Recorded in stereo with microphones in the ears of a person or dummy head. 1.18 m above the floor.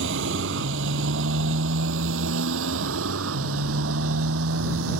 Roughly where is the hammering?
No hammering in this recording.